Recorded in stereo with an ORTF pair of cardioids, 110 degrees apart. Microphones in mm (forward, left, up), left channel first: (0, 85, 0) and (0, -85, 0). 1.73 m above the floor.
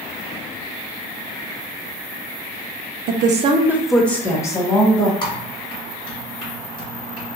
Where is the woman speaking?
65° right, 0.5 m; by 5.1 s 25° left, 1.5 m.